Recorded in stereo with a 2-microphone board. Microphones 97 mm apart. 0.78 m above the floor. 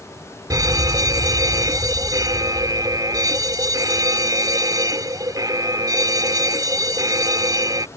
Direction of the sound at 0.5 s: 40° right (ahead or behind).